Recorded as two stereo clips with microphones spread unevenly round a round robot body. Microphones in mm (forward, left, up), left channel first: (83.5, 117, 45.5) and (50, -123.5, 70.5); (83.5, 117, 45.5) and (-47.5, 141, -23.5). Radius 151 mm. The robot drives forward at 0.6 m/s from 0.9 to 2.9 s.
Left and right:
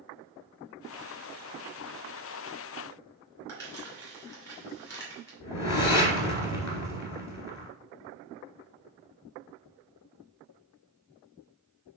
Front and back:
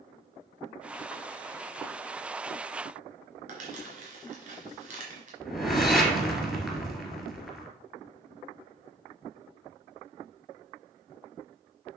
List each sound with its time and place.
3.5 s crumpling: 160° left, 2.5 m
5.4 s a whoosh: 80° left, 1.9 m